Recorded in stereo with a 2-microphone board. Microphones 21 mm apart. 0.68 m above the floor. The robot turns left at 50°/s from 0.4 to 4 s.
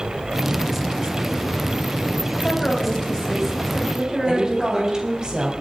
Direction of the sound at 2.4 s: 65° left.